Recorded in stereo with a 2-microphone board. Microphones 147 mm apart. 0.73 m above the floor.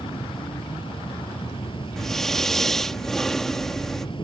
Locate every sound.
0.0 s an insect: 40° left (ahead or behind)
2.0 s breathing: 5° left (ahead or behind)